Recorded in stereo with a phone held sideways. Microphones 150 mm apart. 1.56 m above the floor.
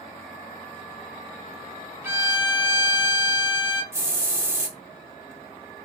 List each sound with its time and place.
2.0 s a violin: 15° right (ahead or behind), 0.6 m
3.9 s a hiss: 15° right (ahead or behind), 0.8 m